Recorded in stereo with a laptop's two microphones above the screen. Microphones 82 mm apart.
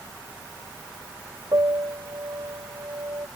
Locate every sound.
1.5 s a piano: 60° right (ahead or behind)